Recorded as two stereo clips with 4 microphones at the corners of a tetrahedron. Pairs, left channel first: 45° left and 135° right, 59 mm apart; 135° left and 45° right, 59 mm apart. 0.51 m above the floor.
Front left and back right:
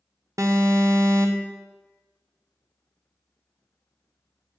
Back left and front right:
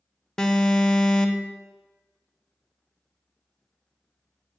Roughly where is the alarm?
Behind right.